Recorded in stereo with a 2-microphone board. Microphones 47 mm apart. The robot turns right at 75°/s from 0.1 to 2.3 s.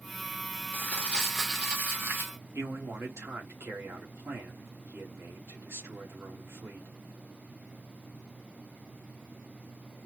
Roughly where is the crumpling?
Behind left.